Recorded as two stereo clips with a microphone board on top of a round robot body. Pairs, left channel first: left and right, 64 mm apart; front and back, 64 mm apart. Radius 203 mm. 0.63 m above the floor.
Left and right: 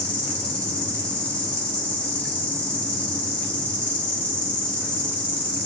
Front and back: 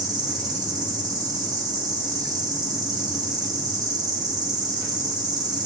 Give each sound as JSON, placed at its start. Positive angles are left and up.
{"t": 0.0, "sound": "an insect", "azimuth_deg": 165, "distance_m": 2.5}